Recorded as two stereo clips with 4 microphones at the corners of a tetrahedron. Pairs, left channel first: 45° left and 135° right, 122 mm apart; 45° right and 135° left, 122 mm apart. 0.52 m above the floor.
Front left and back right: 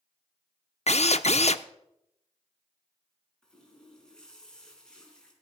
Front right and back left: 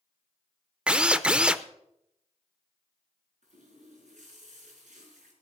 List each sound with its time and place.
0.9 s a drill: 55° left, 0.6 m
3.4 s a running tap: 130° left, 4.5 m